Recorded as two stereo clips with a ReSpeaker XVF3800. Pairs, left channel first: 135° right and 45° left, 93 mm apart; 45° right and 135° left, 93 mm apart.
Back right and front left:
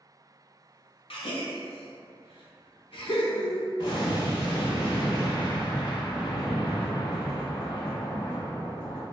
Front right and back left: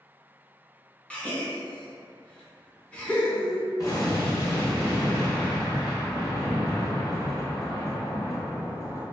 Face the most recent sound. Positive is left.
turn(degrees=-100)